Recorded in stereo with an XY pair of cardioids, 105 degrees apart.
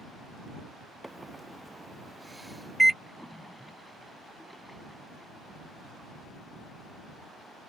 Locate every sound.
1.0 s a microwave: 10° right
3.0 s a splash: 5° left